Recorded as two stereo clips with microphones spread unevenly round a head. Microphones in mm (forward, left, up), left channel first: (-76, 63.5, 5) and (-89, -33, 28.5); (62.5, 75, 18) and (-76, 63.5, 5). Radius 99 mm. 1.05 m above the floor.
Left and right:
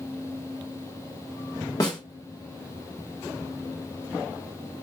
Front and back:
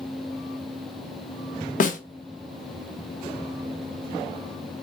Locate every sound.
1.8 s a snare drum: 25° left, 0.8 m